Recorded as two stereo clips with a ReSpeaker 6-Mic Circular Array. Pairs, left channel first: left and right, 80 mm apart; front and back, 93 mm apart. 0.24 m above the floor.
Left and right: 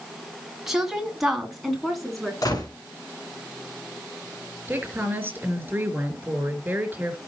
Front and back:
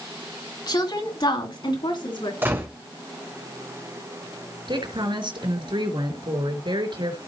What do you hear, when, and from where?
0.7 s a woman speaking: 5° right, 2.5 m; by 2.3 s straight ahead, 3 m
2.4 s a gunshot: 120° left, 3 m
4.7 s a woman speaking: 155° right, 4 m